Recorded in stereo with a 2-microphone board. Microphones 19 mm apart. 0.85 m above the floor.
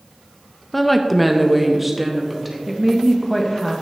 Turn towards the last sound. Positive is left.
turn(degrees=5)  # may be behind; listen again after turning